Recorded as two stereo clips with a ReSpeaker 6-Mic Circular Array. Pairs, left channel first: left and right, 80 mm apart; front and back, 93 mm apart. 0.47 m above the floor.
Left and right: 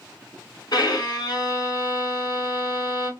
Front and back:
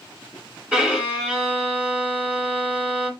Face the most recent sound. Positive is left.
turn(degrees=100)